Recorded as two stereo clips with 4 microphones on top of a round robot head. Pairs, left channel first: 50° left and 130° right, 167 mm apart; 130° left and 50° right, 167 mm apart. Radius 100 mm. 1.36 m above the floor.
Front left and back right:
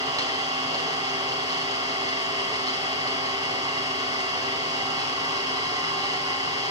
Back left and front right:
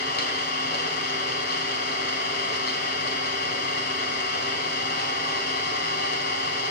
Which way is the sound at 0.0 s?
165° left.